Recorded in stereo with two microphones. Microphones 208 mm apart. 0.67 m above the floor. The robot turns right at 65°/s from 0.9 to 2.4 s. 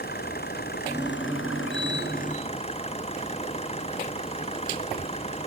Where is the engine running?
50° left; by 5.5 s 150° left.